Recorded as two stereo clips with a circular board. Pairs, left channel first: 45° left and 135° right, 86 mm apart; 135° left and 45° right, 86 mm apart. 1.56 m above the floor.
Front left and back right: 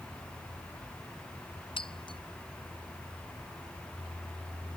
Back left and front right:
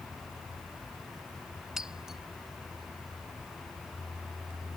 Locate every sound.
1.8 s breaking glass: 40° left